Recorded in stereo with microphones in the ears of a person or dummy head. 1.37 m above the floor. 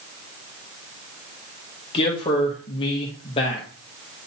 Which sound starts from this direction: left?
A man speaking, at 1.9 s.